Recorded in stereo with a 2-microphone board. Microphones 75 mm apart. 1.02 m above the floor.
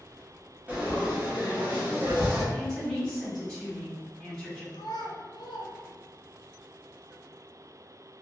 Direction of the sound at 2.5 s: 5° left (ahead or behind).